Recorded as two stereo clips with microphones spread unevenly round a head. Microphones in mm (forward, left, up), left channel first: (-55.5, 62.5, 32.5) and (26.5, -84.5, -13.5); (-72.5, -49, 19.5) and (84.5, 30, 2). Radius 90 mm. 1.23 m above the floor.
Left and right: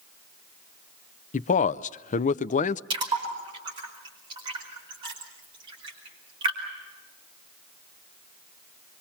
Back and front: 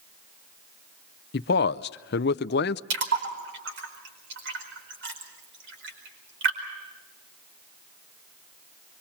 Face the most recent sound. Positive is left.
turn(degrees=5)